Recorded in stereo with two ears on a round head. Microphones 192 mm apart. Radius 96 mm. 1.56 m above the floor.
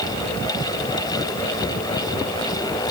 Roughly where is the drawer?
I don't hear a drawer.